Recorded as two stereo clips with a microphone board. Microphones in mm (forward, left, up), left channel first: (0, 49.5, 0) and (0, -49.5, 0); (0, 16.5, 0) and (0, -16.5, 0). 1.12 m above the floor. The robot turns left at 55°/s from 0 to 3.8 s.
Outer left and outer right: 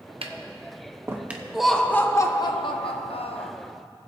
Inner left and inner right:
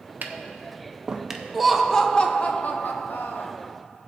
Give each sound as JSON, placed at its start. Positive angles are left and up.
{"t": 0.2, "sound": "tapping", "side_deg": -65, "distance_m": 0.7}
{"t": 1.5, "sound": "laughter", "azimuth_deg": -175, "distance_m": 0.8}